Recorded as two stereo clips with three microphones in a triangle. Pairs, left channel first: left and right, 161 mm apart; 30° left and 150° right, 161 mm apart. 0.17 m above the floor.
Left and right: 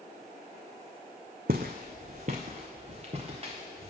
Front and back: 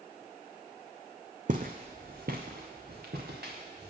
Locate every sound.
1.5 s footsteps: 115° right, 0.7 m; by 3.9 s 145° right, 1.8 m